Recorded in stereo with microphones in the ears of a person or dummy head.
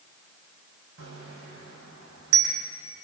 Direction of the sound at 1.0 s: 70° right (ahead or behind).